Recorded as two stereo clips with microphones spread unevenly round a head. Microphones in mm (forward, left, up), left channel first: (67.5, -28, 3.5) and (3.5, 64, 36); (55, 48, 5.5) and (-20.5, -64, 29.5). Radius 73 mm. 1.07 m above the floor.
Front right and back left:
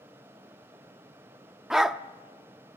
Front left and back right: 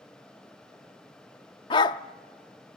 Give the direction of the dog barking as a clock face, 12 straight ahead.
9 o'clock.